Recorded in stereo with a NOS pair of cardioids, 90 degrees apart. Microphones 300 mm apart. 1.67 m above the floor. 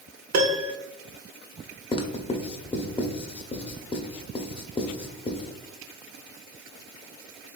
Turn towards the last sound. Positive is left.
turn(degrees=20)